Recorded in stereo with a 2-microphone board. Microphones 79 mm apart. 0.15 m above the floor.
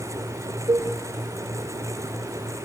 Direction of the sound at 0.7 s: 70° right (ahead or behind).